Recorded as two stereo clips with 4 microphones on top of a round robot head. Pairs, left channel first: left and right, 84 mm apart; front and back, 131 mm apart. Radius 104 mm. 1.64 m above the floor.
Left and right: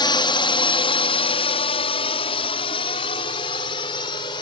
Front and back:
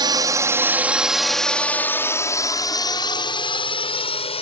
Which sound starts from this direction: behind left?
A drone, at 0.0 s.